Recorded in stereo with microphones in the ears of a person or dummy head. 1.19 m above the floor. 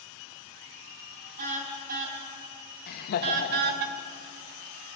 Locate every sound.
1.4 s a car horn: 50° right (ahead or behind), 4.5 m; by 3.9 s 60° right (ahead or behind), 1.4 m
2.9 s laughter: 50° left (ahead or behind), 1.7 m